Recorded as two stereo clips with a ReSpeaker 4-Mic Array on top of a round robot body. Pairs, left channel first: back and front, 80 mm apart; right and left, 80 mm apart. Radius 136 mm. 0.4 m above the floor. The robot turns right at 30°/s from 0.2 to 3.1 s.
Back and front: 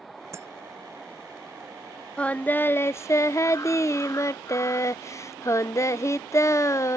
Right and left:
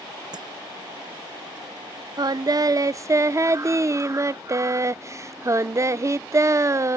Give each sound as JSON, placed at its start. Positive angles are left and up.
{"t": 0.3, "sound": "breaking glass", "azimuth_deg": 55}
{"t": 2.2, "sound": "singing", "azimuth_deg": 105}